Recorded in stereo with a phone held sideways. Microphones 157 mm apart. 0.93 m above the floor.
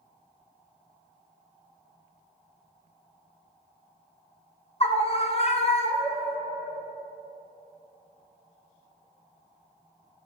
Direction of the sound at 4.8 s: 40° left (ahead or behind).